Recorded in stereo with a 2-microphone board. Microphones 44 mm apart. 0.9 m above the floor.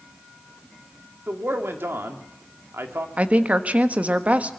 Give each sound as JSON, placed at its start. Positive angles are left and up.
{"t": 1.3, "sound": "a man speaking", "side_deg": -60, "distance_m": 2.0}
{"t": 3.2, "sound": "a woman speaking", "side_deg": -30, "distance_m": 1.3}